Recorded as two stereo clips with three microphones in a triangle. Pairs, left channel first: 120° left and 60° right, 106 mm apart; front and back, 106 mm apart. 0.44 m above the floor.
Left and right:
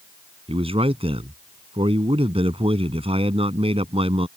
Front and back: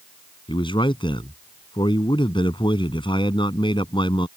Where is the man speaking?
40° right.